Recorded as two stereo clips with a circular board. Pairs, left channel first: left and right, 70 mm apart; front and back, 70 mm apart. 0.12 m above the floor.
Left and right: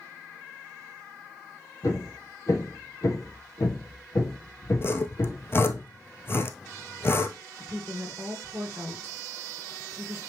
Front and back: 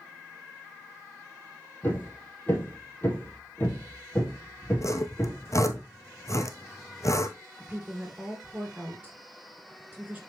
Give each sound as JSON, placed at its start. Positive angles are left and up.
{"t": 1.8, "sound": "hammering", "azimuth_deg": 60, "distance_m": 2.5}
{"t": 4.8, "sound": "sawing", "azimuth_deg": 40, "distance_m": 0.7}
{"t": 7.6, "sound": "a woman speaking", "azimuth_deg": -120, "distance_m": 1.7}